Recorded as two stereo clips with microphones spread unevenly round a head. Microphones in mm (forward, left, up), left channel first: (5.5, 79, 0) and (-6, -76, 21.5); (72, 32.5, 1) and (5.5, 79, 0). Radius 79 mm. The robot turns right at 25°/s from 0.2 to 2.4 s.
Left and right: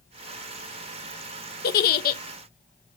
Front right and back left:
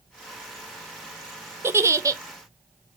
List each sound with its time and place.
1.6 s a giggle: 85° left, 0.6 m; by 2.2 s 100° left, 0.6 m